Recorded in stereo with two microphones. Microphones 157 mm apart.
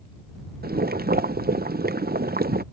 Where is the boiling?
65° right (ahead or behind).